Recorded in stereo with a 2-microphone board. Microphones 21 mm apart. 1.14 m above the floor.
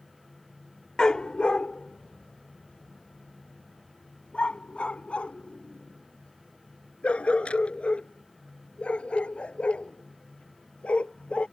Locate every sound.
1.0 s a dog barking: 35° left (ahead or behind); by 11.4 s 75° left (ahead or behind)